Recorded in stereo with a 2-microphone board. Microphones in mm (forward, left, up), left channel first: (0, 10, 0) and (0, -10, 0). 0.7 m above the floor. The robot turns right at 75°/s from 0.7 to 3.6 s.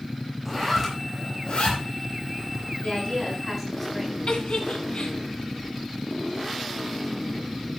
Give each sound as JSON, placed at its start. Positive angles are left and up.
{"t": 0.5, "sound": "a zipper", "side_deg": -10, "distance_m": 5.5}
{"t": 2.8, "sound": "a woman speaking", "azimuth_deg": 120, "distance_m": 6.5}
{"t": 4.3, "sound": "a giggle", "side_deg": 70, "distance_m": 2.5}